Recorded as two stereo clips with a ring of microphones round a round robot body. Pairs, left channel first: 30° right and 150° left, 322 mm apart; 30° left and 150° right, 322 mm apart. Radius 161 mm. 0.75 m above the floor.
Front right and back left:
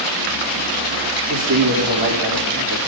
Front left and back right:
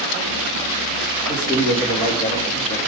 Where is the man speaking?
105° left, 2.5 m.